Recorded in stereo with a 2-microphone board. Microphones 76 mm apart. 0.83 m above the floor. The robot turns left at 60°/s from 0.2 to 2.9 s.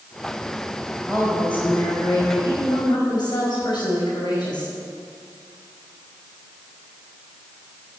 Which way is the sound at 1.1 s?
Straight behind.